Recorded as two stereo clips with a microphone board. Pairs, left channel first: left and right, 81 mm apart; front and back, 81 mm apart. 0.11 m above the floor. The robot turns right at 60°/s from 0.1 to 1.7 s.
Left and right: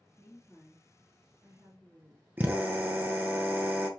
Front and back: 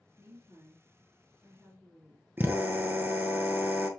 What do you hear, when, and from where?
0.2 s a woman speaking: 140° left, 1.8 m; by 2.3 s 130° right, 1.8 m
2.4 s a drill: 140° right, 0.8 m